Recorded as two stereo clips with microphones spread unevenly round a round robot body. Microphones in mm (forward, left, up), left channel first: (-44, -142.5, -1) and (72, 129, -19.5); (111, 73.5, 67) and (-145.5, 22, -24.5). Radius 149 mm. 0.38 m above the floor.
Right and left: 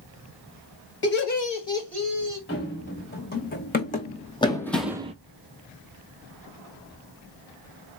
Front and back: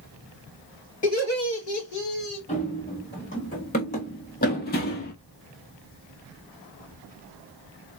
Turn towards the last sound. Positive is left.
turn(degrees=0)